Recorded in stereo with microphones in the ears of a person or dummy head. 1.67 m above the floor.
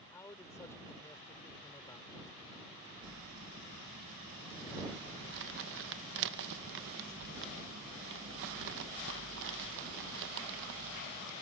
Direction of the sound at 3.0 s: 65° right (ahead or behind).